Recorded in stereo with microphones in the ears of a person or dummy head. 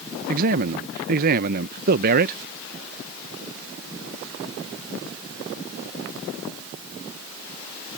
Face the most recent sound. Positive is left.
turn(degrees=-50)  # may be behind; listen again after turning